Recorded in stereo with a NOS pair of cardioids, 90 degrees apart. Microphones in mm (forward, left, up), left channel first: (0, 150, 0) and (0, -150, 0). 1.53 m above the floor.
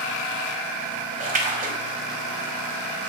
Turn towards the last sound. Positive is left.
turn(degrees=-30)